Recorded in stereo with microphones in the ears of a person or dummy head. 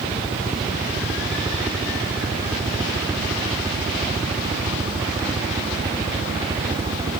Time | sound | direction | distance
0.0 | a helicopter | 10° right (ahead or behind) | ?